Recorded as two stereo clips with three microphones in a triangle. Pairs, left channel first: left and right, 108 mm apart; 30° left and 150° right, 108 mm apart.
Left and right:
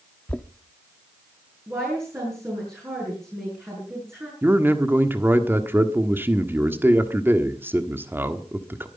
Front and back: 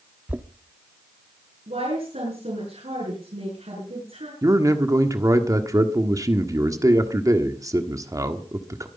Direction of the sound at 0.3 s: 155° left.